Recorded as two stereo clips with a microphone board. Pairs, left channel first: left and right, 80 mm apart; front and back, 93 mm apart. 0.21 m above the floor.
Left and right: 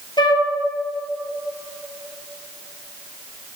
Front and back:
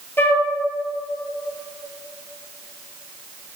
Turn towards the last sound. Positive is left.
turn(degrees=65)